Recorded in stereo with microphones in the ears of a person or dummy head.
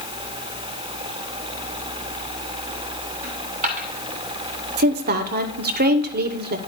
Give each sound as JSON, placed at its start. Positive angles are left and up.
{"t": 3.2, "sound": "a dropped coin", "side_deg": -35, "distance_m": 1.3}
{"t": 4.8, "sound": "a woman speaking", "side_deg": -50, "distance_m": 0.8}